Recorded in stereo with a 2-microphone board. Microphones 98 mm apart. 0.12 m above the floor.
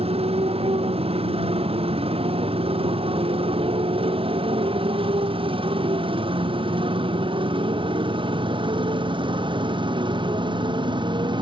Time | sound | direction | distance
0.0 | a motorcycle | 80° right | ?